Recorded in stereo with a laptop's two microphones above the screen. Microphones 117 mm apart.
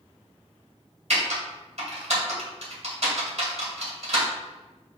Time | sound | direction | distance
1.1 | typing on a keyboard | 70° right (ahead or behind) | 1.9 m